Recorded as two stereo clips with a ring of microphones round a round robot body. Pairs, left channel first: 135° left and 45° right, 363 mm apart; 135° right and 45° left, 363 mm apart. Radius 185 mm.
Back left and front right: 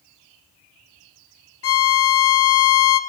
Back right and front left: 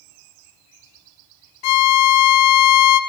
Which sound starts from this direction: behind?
A violin, at 1.6 s.